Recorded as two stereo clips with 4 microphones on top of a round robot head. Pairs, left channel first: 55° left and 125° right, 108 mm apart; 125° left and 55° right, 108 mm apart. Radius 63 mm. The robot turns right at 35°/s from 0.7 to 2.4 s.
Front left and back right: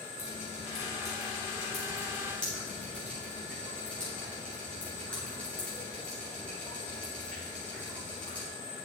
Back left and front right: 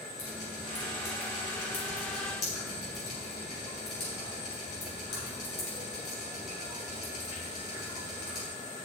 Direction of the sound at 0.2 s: 75° left.